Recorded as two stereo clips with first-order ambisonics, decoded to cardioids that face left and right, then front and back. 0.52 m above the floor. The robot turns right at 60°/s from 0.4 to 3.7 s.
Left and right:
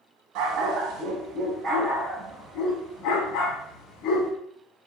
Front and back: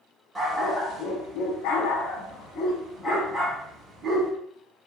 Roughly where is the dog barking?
Right.